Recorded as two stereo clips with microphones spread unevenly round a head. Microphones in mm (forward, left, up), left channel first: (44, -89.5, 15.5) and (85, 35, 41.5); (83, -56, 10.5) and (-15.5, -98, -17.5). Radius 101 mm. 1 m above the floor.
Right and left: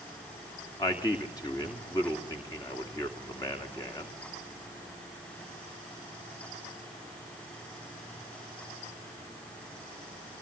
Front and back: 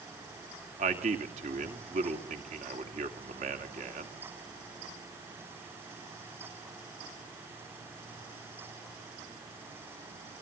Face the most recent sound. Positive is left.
turn(degrees=-175)